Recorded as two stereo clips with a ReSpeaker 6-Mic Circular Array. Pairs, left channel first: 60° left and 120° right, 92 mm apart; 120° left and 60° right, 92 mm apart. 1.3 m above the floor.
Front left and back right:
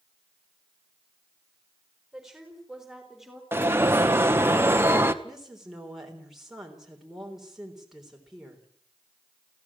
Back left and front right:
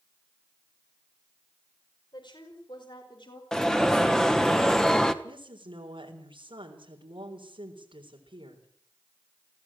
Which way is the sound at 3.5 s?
160° right.